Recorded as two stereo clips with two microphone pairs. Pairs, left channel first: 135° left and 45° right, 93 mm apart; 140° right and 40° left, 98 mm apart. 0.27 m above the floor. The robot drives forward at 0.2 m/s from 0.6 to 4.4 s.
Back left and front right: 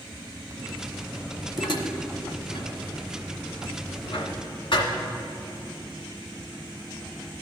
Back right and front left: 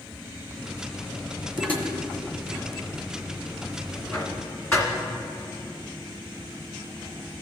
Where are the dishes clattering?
150° left, 1.2 m; by 4.9 s 160° left, 1.7 m.